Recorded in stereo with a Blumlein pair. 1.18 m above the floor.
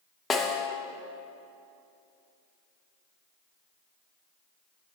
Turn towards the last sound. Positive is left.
turn(degrees=20)